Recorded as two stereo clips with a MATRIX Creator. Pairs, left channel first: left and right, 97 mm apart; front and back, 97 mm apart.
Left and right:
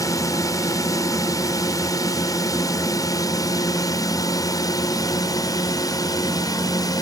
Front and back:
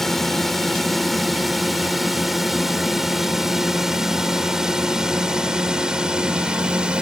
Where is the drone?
85° left; by 7.0 s 105° left.